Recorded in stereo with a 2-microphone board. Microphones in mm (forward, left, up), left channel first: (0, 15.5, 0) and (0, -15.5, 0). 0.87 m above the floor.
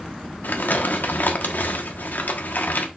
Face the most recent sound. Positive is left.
turn(degrees=80)